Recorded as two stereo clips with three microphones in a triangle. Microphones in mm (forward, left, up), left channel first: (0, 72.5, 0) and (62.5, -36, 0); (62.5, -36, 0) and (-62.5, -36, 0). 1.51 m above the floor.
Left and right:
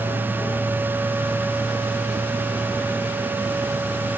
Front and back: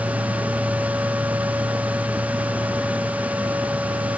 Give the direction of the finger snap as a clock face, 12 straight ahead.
No finger snap in this recording.